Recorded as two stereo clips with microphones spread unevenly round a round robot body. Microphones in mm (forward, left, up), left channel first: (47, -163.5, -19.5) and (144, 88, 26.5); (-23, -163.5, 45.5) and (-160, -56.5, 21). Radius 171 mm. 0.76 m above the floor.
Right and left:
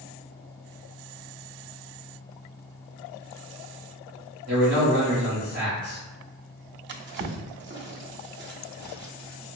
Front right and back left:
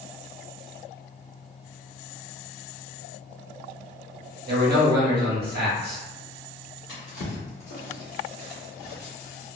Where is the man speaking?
135° left, 1.6 m.